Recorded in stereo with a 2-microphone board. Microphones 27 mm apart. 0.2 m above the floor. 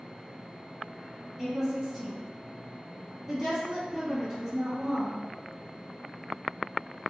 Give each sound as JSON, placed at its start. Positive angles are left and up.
{"t": 1.4, "sound": "a woman speaking", "side_deg": 5, "distance_m": 1.5}